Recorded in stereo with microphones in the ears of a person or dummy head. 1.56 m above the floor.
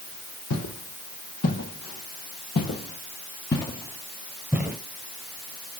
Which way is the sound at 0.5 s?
65° left (ahead or behind).